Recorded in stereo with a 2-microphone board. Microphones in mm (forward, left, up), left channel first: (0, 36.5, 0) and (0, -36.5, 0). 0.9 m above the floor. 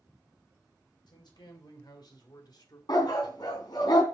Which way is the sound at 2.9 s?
70° left (ahead or behind).